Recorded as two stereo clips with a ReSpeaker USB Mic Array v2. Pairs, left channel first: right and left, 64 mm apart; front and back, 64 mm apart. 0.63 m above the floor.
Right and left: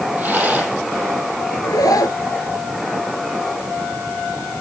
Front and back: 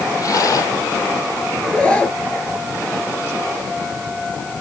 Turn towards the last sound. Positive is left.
turn(degrees=-75)